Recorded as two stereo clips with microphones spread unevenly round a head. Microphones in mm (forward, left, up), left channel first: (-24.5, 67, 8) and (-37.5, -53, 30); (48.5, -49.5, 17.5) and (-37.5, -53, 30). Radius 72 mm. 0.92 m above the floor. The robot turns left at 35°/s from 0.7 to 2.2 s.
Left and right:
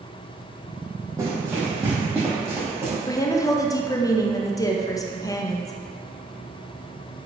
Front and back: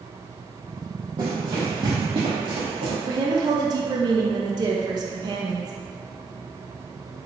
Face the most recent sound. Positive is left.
turn(degrees=135)